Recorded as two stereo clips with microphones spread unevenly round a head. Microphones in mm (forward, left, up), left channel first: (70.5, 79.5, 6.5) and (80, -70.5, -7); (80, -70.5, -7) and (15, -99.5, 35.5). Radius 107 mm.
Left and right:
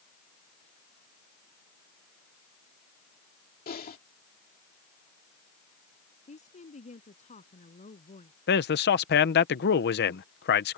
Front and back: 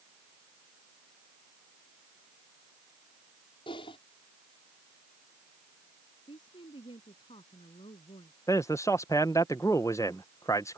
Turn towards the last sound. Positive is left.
turn(degrees=100)